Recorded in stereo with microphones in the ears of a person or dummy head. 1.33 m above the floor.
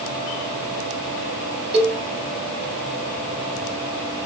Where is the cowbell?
20° right (ahead or behind), 0.7 m.